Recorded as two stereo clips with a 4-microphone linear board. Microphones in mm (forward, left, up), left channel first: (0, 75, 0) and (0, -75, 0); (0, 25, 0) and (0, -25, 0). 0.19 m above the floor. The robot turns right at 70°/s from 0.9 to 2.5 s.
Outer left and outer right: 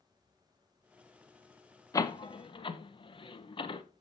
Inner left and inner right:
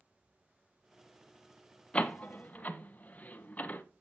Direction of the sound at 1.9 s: 25° left (ahead or behind).